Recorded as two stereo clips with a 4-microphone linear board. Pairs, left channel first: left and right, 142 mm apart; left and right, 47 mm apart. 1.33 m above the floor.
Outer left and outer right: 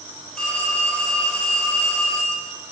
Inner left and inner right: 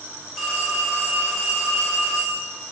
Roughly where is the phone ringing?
Centre.